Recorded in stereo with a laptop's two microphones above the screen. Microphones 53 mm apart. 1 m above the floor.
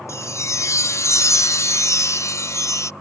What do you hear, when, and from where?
0.1 s a chime: 70° left (ahead or behind)